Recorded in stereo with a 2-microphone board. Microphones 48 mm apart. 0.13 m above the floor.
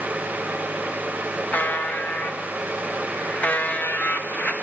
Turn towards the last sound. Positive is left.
turn(degrees=35)  # may be behind; listen again after turning